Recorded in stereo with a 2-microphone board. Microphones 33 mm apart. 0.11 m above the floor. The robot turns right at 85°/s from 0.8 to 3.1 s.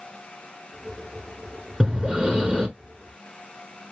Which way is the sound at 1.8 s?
20° right (ahead or behind).